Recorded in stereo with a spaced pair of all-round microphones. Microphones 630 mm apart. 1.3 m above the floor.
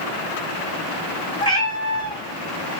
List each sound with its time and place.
1.4 s a cat meowing: 5° left (ahead or behind), 1.8 m